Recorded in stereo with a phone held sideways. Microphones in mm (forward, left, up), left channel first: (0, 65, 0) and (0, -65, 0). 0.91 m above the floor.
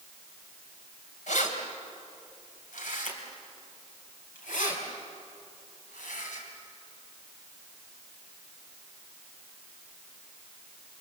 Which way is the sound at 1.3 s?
70° left (ahead or behind).